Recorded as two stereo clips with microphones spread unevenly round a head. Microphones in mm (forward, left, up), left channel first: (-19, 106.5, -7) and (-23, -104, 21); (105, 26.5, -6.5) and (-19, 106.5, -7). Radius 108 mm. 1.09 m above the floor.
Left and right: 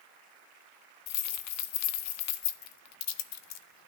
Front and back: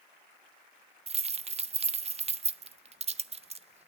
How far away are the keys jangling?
About 0.5 m.